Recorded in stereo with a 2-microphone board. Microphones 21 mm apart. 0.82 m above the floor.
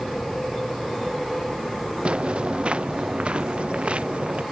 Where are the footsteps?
60° right (ahead or behind); by 4.4 s 65° right (ahead or behind).